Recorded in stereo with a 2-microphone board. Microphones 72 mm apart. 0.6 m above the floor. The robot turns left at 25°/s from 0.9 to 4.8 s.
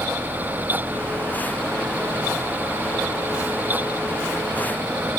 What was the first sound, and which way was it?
Only background noise.